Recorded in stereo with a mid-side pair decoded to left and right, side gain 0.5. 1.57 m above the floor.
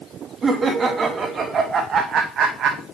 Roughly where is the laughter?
Ahead right.